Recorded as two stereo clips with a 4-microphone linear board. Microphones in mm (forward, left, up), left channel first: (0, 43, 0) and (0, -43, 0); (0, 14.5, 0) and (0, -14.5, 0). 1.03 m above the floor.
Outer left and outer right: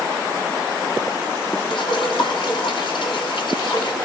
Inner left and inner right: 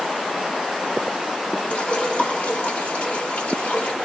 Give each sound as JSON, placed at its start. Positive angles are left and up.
{"t": 1.7, "sound": "dripping", "side_deg": 75, "distance_m": 3.0}